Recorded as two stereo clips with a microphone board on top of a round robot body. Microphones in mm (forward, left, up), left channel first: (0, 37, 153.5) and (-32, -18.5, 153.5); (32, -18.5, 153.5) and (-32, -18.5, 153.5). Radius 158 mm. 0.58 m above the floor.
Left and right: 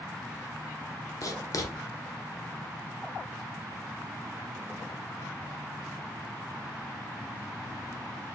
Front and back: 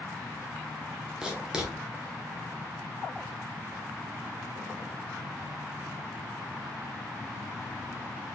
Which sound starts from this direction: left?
Writing, at 1.2 s.